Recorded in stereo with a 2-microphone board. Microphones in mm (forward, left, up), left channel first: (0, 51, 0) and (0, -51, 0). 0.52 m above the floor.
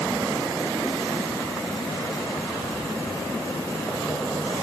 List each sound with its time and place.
Only background noise.